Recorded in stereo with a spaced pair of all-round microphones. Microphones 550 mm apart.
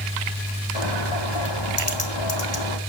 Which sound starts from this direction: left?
A bird, at 0.8 s.